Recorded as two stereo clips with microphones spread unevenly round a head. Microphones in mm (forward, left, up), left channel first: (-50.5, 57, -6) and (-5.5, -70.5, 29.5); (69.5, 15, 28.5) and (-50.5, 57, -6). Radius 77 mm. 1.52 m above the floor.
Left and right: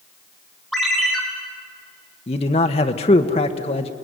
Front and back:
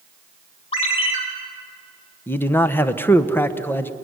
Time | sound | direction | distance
0.7 | a ringtone | 15° left | 3.5 m
2.3 | a man speaking | 55° left | 1.1 m